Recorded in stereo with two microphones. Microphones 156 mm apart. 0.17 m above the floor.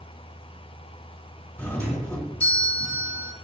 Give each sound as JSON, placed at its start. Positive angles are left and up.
{"t": 1.6, "sound": "a doorbell", "side_deg": 10, "distance_m": 2.5}